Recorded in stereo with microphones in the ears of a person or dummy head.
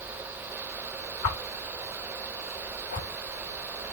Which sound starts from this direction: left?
A whoosh, at 1.2 s.